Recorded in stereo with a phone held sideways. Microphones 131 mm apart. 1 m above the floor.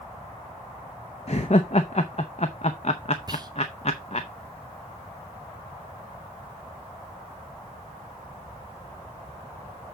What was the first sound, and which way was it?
Laughter, 55° left (ahead or behind).